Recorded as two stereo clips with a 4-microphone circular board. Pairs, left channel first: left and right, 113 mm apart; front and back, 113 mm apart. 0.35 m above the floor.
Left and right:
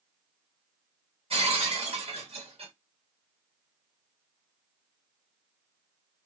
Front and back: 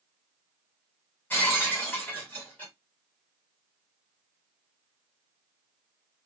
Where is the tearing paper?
I don't hear tearing paper.